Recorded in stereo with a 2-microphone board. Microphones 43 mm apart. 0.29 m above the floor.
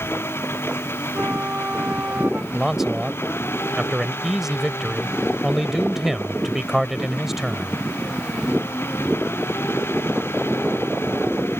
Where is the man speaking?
10° right (ahead or behind).